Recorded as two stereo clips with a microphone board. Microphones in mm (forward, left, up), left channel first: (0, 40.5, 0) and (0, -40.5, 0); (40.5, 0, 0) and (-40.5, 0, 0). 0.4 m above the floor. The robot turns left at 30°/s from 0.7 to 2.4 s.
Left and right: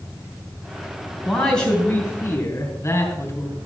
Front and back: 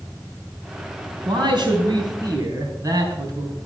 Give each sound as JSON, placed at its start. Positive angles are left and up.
{"t": 1.2, "sound": "a man speaking", "azimuth_deg": 175, "distance_m": 3.5}